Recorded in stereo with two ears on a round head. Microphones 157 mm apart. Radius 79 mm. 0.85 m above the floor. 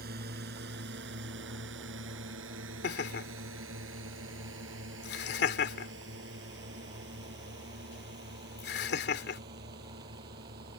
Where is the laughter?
65° left (ahead or behind).